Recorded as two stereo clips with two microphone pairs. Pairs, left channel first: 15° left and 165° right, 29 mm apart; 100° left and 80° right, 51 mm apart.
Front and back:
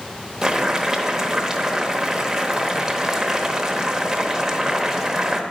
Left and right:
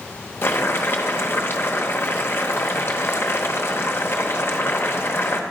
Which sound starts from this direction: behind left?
Boiling, at 0.4 s.